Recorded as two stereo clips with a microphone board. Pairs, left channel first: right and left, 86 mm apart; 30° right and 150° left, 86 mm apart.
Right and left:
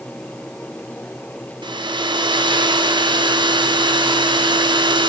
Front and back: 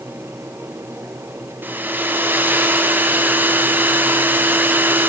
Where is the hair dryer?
85° left, 0.5 m.